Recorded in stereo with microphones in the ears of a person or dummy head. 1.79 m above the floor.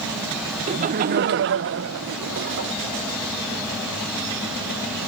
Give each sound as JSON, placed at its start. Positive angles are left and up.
{"t": 0.7, "sound": "laughter", "side_deg": -40}